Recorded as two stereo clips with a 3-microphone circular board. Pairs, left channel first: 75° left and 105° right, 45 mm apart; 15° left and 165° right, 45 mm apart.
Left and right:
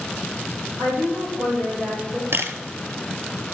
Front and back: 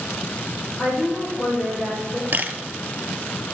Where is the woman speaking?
70° right, 5 m; by 2.2 s 60° right, 5 m.